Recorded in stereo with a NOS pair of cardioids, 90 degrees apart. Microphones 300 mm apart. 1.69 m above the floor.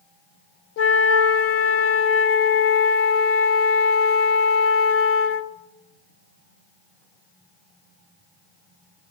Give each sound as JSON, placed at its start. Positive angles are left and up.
{"t": 0.8, "sound": "a flute", "azimuth_deg": 50, "distance_m": 0.8}